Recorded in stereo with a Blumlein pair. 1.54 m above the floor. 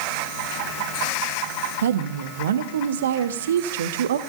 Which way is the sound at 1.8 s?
60° right.